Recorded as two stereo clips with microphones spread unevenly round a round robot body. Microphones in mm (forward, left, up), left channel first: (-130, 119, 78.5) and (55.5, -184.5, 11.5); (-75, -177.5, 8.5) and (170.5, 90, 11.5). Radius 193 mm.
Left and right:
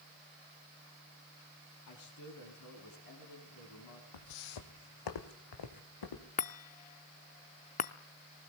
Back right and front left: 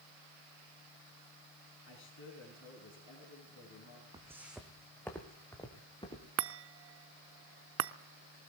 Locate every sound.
1.9 s a man speaking: 165° left, 4.5 m
4.1 s footsteps: 130° left, 1.4 m; by 6.3 s 150° left, 3.5 m
6.4 s a chime: 50° left, 0.6 m